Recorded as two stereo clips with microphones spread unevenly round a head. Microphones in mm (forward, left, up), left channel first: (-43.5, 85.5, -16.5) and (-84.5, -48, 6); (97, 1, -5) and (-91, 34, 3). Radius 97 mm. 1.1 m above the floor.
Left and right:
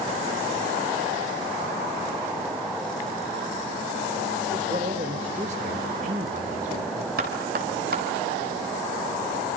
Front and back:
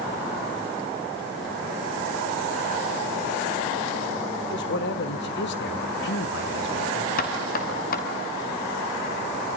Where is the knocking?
60° right, 5.5 m.